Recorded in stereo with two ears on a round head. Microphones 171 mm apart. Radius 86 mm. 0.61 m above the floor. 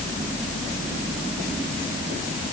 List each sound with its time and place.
Only background noise.